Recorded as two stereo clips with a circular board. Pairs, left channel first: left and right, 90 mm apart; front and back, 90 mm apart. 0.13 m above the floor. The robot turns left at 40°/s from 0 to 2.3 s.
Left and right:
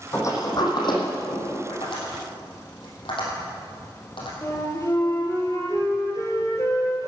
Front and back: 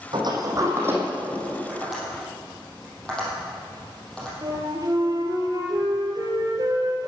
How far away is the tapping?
About 4.5 m.